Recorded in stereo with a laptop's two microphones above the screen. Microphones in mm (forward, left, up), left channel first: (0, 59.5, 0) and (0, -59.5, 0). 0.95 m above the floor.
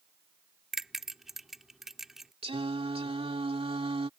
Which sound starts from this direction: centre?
A bell, at 0.7 s.